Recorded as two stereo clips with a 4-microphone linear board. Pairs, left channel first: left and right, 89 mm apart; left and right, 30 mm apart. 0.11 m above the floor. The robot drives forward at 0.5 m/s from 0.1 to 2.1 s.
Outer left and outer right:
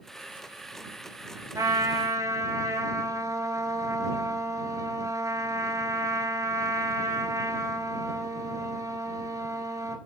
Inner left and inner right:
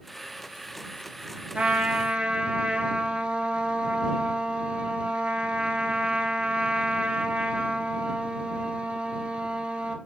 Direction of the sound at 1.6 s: 40° right (ahead or behind).